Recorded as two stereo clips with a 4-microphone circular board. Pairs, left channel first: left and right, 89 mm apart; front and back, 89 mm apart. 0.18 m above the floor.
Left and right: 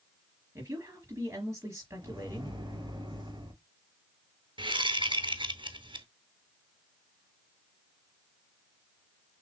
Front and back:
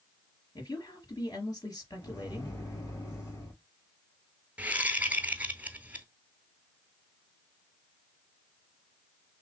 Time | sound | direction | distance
0.6 | a woman speaking | 40° right | 3.5 m
2.0 | a microwave | 55° right | 3 m
4.6 | a whoosh | 110° right | 0.7 m